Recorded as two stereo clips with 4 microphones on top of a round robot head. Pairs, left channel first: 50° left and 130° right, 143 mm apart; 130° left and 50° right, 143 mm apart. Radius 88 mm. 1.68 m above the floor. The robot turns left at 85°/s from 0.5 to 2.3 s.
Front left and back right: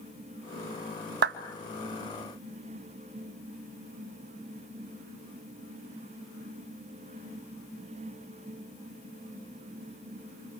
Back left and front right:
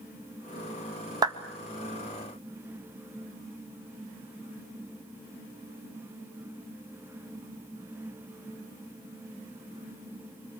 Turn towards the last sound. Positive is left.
turn(degrees=155)